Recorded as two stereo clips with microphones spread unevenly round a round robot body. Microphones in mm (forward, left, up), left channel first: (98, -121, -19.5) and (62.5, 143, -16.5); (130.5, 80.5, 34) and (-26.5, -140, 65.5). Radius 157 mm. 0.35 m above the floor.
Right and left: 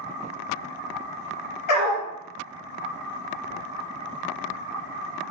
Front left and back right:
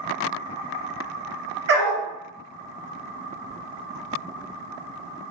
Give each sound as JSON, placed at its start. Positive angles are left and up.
{"t": 1.7, "sound": "a dog barking", "azimuth_deg": -85, "distance_m": 2.5}